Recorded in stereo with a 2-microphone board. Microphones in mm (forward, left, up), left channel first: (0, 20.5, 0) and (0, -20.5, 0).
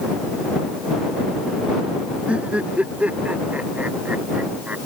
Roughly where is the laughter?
Right.